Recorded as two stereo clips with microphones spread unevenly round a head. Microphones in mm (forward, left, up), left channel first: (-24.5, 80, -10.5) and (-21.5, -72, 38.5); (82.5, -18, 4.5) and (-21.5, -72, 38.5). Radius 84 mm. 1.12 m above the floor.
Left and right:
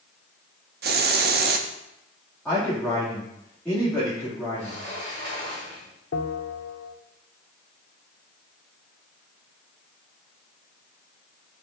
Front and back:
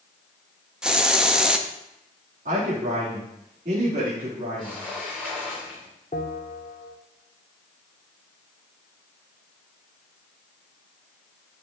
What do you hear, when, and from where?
0.8 s a hiss: 75° right, 0.8 m
2.5 s a man speaking: 170° left, 2.5 m
4.6 s a sliding door: 55° right, 5 m
6.1 s a bell: 80° left, 1.0 m